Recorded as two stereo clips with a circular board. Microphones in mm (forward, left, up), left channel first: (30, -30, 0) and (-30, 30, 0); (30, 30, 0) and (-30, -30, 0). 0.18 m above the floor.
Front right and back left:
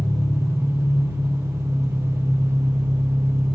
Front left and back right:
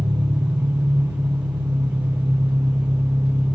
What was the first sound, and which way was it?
An engine running, 175° right.